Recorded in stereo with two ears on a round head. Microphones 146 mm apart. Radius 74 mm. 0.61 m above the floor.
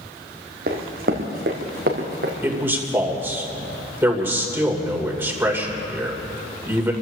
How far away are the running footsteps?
About 2 m.